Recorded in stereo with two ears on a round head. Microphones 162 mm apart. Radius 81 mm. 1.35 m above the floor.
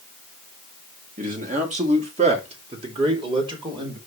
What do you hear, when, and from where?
1.2 s a man speaking: 45° right (ahead or behind), 2.5 m; by 4.0 s 25° right (ahead or behind), 4 m